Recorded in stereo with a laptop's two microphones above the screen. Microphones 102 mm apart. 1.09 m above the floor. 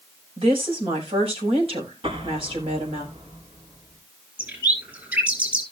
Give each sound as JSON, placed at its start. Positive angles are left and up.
{"t": 0.4, "sound": "a woman speaking", "side_deg": -65, "distance_m": 5.5}
{"t": 2.0, "sound": "an explosion", "side_deg": -60, "distance_m": 3.5}
{"t": 4.4, "sound": "a bird", "side_deg": -15, "distance_m": 5.5}